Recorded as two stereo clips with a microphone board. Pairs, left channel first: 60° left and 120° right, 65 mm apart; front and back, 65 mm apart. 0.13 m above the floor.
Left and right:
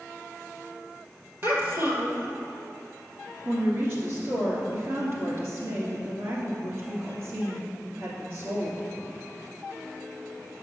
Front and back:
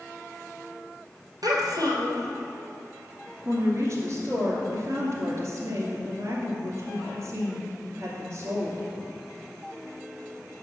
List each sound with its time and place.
1.4 s a child speaking: 170° right, 2 m
3.5 s a woman speaking: 150° right, 2.5 m